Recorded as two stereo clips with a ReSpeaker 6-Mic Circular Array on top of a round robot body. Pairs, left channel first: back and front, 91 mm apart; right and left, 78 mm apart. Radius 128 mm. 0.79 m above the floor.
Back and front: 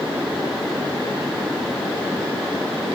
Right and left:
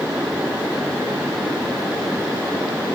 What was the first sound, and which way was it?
Only background noise.